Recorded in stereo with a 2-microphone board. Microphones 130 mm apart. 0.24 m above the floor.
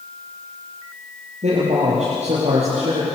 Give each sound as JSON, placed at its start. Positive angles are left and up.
{"t": 1.4, "sound": "a man speaking", "side_deg": -60, "distance_m": 7.5}